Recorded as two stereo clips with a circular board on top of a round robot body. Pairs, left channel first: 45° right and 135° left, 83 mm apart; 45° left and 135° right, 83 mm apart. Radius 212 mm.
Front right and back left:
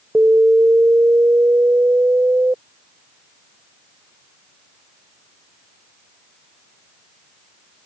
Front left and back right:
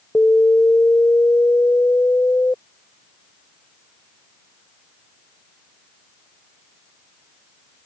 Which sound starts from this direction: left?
An alarm, at 0.1 s.